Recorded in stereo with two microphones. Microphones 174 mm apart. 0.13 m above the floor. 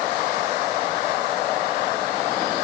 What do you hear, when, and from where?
Only background noise.